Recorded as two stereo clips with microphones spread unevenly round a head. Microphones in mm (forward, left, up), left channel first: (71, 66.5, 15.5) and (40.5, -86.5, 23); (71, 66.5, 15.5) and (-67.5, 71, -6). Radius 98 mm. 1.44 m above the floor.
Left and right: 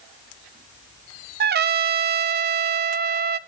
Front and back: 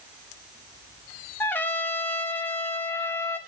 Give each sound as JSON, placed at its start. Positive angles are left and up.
{"t": 1.4, "sound": "a trumpet", "azimuth_deg": -85, "distance_m": 0.7}